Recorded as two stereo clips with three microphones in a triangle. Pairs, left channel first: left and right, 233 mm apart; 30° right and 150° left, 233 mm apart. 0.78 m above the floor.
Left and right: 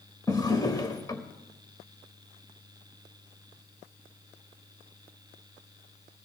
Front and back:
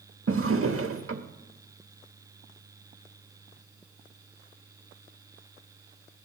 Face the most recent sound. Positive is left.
turn(degrees=160)